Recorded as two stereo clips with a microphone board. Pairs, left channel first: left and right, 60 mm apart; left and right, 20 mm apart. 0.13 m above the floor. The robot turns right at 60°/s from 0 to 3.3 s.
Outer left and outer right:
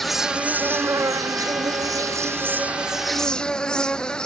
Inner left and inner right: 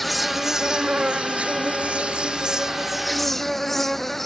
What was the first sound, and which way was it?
An insect, 175° left.